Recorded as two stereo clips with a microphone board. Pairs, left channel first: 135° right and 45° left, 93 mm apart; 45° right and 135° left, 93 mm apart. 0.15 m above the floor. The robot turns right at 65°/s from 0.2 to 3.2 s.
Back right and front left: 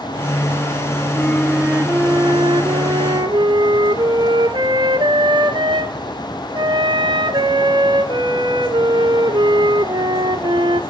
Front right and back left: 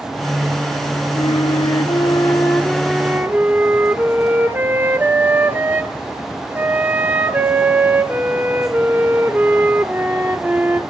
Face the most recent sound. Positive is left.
turn(degrees=70)